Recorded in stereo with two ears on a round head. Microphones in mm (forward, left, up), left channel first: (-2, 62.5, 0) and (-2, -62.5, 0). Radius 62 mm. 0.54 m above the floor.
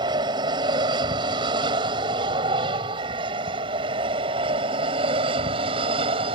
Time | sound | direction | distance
0.0 | an aircraft | 35° right (ahead or behind) | ?